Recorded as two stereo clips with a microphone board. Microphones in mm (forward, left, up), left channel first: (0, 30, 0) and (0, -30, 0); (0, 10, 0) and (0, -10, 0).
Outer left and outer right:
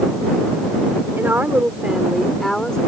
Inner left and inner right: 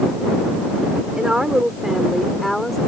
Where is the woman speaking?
40° right (ahead or behind); by 2.8 s 15° left (ahead or behind).